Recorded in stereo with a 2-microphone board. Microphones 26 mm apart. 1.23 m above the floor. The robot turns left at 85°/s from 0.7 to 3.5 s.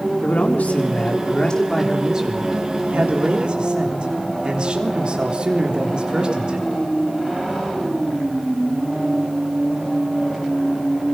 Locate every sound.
0.2 s a man speaking: 100° left, 3.5 m; by 6.7 s 135° right, 3.5 m